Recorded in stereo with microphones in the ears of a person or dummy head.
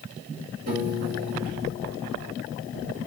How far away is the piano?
About 3.5 m.